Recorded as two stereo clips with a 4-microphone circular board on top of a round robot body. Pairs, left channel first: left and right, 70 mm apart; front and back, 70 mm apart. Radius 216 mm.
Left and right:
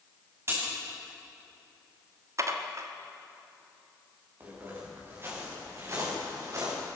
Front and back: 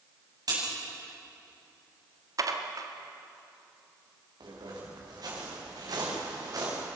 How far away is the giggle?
I don't hear a giggle.